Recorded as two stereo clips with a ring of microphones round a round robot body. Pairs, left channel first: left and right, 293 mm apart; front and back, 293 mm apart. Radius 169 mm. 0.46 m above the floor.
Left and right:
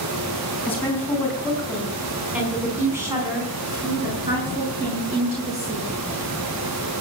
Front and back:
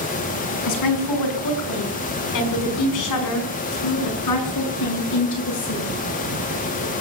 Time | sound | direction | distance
0.7 | a woman speaking | 5° left | 4.5 m